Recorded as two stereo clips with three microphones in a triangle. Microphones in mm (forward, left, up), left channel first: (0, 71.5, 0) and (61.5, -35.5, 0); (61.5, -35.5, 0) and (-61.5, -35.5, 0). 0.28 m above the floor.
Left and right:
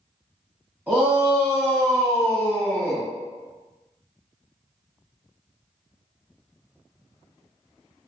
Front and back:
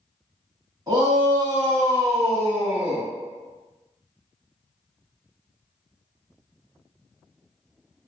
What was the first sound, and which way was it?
A shout, 135° right.